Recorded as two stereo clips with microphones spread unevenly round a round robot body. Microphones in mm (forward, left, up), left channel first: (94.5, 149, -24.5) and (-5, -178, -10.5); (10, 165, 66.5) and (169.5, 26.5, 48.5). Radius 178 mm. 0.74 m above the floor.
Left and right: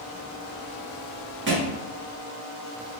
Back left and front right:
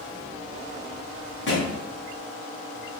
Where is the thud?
165° right, 0.9 m.